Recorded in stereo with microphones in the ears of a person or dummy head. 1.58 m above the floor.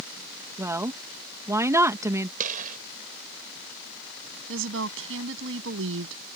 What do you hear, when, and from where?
0.6 s a woman speaking: 15° right (ahead or behind)
2.4 s a gunshot: 45° right (ahead or behind)
4.5 s a woman speaking: 75° right (ahead or behind)